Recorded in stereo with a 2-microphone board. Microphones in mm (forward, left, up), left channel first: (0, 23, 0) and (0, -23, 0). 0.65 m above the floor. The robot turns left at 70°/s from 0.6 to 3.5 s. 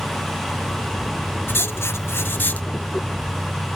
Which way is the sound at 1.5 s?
120° left.